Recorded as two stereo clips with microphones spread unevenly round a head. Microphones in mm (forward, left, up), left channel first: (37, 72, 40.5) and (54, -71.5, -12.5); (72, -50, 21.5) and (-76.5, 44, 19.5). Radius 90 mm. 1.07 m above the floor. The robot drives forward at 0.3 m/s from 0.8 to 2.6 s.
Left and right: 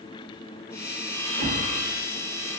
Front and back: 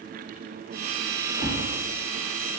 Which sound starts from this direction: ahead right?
A whoosh, at 1.3 s.